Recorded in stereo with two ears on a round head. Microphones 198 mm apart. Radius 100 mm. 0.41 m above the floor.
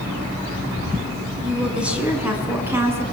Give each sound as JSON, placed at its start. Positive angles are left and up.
{"t": 1.4, "sound": "a woman speaking", "side_deg": -5, "distance_m": 6.0}